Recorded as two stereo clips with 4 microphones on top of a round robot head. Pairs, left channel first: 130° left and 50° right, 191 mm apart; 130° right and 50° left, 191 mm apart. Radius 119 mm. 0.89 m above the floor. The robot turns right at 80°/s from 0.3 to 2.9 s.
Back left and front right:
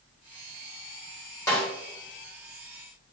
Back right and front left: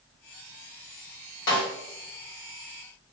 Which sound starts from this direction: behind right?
A snare drum, at 1.5 s.